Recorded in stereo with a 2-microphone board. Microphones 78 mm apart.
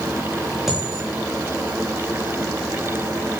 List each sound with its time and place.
0.7 s a dropped coin: centre (ahead or behind), 8.5 m